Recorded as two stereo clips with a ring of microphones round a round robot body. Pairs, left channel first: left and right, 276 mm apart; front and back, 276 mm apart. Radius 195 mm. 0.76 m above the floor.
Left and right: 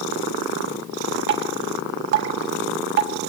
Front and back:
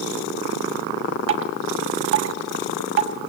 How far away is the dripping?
About 1.5 m.